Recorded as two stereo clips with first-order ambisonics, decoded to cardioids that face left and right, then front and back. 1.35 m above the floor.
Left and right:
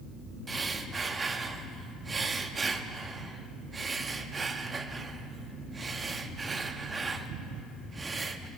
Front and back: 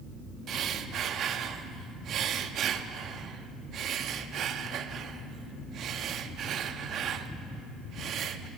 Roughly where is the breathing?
Behind right.